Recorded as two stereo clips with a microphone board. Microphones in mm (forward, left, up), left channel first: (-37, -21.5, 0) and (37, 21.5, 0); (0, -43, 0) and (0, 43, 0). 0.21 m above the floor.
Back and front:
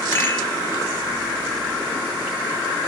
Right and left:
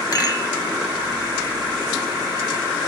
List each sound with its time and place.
0.1 s a rattle: 100° right, 1.4 m